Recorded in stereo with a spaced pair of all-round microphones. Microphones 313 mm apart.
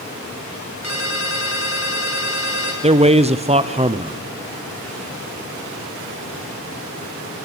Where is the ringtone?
55° right (ahead or behind), 4.5 m.